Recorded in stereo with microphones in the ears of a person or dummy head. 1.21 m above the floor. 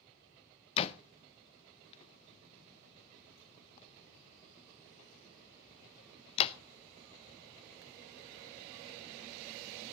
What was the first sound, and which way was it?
A door slam, 35° left (ahead or behind).